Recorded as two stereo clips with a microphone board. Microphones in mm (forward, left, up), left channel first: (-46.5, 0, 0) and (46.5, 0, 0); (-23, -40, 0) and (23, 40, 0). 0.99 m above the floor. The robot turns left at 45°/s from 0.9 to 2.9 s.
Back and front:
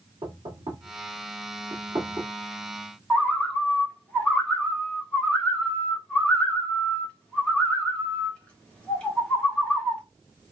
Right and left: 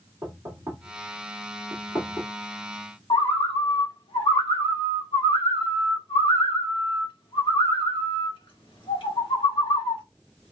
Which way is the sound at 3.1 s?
100° right.